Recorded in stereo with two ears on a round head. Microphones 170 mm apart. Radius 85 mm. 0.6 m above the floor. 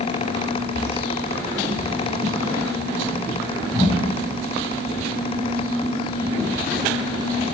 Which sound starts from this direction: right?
Footsteps, at 0.8 s.